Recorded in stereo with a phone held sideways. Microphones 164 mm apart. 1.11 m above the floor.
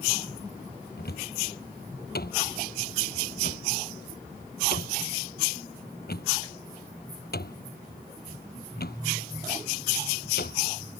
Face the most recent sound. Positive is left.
turn(degrees=75)  # may be behind; listen again after turning